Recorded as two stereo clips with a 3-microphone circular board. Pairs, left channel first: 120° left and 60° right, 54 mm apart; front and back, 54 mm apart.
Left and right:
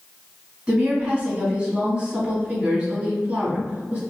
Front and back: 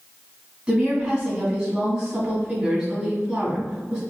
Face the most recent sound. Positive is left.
turn(degrees=-115)